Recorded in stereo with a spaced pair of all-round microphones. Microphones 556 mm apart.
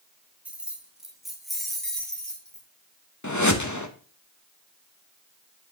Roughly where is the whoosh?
Left.